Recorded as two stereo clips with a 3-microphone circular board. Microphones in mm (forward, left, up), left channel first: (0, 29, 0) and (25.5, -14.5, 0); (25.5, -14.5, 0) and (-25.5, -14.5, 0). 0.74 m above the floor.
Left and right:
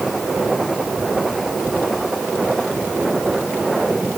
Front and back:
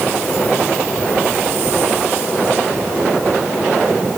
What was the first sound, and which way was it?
Only background noise.